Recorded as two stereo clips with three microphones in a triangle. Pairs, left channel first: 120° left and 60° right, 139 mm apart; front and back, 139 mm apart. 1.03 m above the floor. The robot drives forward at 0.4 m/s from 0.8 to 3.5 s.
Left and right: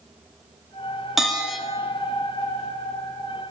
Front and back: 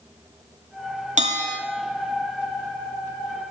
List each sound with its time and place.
1.2 s a bell: 150° right, 1.9 m